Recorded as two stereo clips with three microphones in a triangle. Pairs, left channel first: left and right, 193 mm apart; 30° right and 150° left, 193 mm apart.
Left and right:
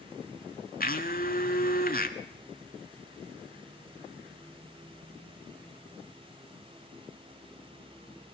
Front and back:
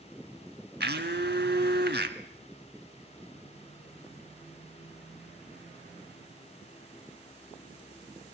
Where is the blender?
125° left, 1.5 m.